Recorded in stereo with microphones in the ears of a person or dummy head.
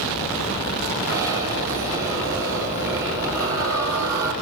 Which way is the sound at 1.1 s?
20° right (ahead or behind).